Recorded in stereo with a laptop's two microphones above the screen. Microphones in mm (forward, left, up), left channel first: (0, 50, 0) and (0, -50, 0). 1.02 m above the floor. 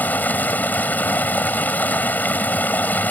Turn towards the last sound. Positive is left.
turn(degrees=15)  # may be behind; listen again after turning